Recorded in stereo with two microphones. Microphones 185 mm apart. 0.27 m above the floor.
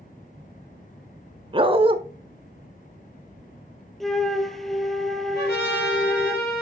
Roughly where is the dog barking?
Right.